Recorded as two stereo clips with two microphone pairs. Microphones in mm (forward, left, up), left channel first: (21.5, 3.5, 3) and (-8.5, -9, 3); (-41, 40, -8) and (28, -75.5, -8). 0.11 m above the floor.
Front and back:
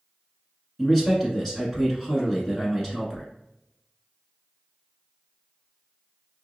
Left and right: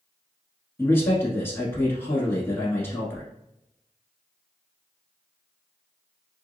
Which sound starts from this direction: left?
A man speaking, at 0.8 s.